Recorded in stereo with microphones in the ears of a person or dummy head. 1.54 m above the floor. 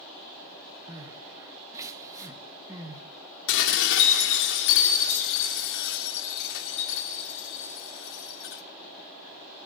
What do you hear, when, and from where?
0.9 s crying: 15° right (ahead or behind), 1.6 m
3.5 s dishes clattering: 70° left (ahead or behind), 3 m